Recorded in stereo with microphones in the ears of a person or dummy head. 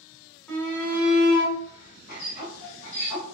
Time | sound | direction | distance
0.5 | a shout | 10° left (ahead or behind) | 1.2 m